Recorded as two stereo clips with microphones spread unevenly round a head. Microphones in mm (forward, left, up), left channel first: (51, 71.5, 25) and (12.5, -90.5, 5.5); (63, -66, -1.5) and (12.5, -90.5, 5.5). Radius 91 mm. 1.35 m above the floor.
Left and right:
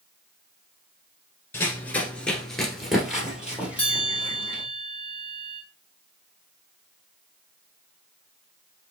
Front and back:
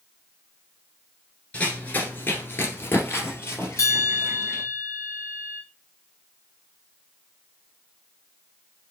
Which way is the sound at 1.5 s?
70° left.